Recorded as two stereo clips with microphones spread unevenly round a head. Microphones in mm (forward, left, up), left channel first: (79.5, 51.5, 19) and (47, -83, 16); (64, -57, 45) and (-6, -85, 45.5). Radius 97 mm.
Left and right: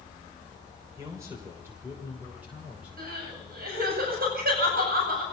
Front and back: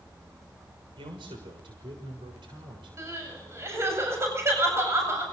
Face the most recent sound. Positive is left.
turn(degrees=-105)